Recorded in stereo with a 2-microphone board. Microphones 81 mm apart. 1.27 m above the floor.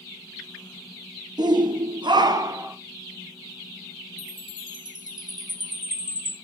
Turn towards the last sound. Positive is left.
turn(degrees=-60)  # may be behind; listen again after turning